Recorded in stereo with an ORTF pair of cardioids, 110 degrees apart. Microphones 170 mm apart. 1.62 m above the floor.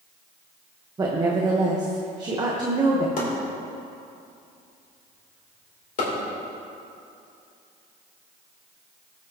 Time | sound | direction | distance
1.0 | a woman speaking | 25° right | 1.2 m
3.2 | chopping | 55° left | 3 m